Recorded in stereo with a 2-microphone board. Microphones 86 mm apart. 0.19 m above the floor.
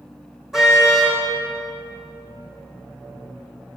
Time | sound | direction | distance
0.5 | a car horn | 5° right (ahead or behind) | 4 m